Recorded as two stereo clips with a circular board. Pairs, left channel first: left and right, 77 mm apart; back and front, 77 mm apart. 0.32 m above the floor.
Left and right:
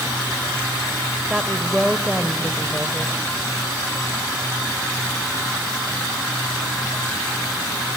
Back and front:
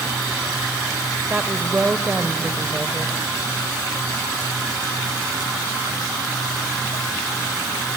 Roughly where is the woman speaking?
Ahead right.